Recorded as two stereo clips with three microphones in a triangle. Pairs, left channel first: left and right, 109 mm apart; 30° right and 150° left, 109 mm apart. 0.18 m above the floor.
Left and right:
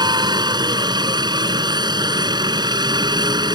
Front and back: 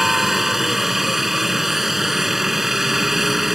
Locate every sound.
0.0 s a helicopter: 125° right